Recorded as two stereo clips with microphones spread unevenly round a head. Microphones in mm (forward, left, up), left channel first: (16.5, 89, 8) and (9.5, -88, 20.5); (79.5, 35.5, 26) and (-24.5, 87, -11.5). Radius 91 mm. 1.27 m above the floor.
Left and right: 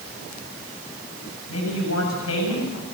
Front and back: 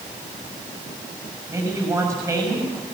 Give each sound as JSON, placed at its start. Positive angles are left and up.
{"t": 1.5, "sound": "a man speaking", "azimuth_deg": 90, "distance_m": 6.0}